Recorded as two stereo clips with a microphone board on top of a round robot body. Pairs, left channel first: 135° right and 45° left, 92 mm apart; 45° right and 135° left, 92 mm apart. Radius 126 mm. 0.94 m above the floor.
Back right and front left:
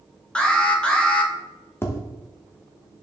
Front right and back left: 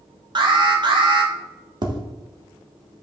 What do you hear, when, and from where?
0.3 s an alarm: 150° left, 2.0 m
1.8 s tapping: 165° left, 1.4 m